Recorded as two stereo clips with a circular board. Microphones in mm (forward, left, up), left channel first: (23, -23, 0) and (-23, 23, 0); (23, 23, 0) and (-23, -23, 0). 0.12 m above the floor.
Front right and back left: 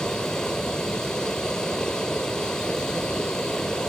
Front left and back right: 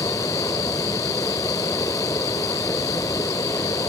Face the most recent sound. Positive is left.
turn(degrees=35)